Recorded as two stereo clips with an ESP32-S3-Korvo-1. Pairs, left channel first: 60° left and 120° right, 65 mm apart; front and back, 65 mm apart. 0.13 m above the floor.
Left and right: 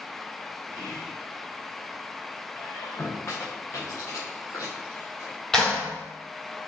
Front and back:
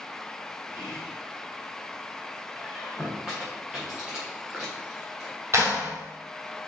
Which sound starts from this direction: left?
A squeak, at 2.6 s.